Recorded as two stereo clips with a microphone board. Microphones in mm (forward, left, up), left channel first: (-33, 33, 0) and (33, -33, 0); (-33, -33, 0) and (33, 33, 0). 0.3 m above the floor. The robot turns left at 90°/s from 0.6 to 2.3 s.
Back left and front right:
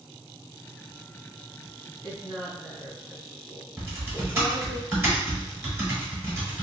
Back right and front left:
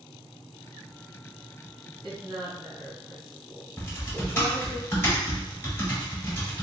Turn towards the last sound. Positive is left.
turn(degrees=-95)